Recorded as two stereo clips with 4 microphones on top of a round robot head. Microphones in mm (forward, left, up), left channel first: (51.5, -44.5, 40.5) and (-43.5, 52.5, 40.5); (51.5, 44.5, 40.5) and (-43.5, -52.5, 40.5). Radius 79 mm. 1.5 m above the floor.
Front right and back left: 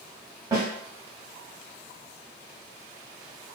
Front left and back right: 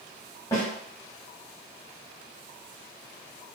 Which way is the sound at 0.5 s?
85° left.